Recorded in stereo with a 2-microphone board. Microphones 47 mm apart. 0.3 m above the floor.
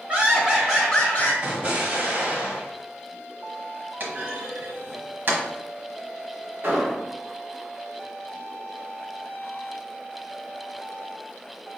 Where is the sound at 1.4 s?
35° right (ahead or behind), 1.2 m.